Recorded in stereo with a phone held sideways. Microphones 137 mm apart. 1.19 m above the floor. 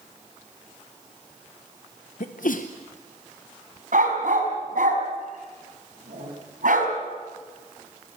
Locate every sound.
2.2 s a sneeze: 75° left (ahead or behind), 0.8 m
3.9 s a dog barking: 70° right (ahead or behind), 3.5 m